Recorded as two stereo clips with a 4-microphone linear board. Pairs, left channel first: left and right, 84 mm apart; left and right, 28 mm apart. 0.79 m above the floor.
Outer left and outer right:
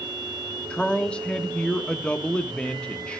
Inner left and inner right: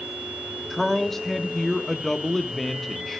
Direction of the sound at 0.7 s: 10° left (ahead or behind).